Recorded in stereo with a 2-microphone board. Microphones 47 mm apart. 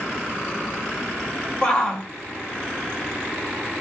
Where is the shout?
20° left (ahead or behind), 2 m.